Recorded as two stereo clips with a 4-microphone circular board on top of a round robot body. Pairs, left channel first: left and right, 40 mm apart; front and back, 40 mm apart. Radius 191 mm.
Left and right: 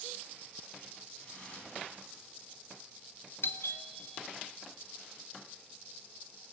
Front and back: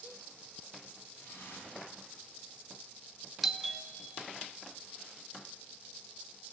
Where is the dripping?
25° left, 5 m.